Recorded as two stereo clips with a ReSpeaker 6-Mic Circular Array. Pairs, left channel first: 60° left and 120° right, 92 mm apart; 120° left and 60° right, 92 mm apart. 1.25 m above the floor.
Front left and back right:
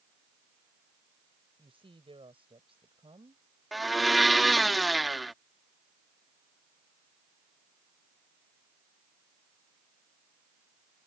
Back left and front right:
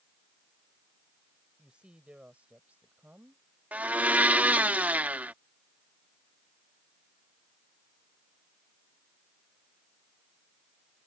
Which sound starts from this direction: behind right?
A woman speaking, at 1.6 s.